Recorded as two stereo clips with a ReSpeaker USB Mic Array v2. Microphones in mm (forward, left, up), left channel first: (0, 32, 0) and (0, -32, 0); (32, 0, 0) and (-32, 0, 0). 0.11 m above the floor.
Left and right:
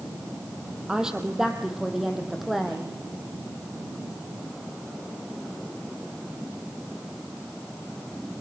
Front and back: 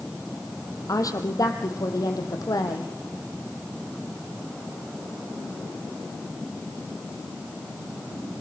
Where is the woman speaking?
10° right, 3.5 m; by 2.9 s straight ahead, 5 m.